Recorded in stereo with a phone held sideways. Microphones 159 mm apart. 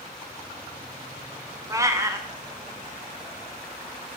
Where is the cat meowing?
20° right (ahead or behind), 0.7 m.